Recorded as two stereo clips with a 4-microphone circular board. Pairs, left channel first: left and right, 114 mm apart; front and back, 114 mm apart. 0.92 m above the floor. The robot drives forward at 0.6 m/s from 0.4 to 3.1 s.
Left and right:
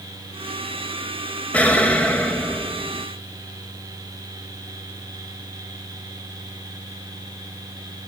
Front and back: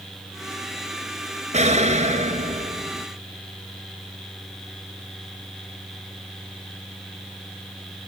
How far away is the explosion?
About 4 m.